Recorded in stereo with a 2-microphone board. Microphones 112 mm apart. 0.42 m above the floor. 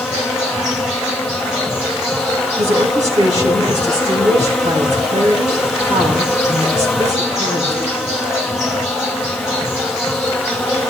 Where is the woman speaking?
75° right (ahead or behind), 4.5 m.